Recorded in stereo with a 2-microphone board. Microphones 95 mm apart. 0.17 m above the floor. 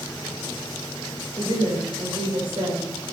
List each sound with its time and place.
1.4 s a woman speaking: 65° right (ahead or behind), 4 m